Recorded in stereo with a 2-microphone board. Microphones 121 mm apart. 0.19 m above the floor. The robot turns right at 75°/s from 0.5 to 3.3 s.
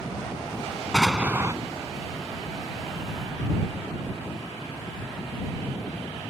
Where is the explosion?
175° left; by 1.6 s 140° right.